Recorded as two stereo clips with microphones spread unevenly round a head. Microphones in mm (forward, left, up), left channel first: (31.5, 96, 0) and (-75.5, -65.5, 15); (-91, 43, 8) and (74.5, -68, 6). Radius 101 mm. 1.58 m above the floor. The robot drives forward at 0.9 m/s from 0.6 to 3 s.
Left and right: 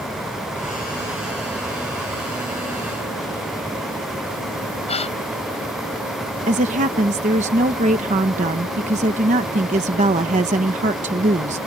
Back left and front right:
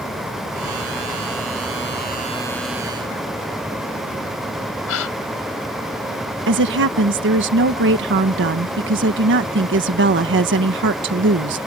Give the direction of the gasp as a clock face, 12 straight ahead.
8 o'clock.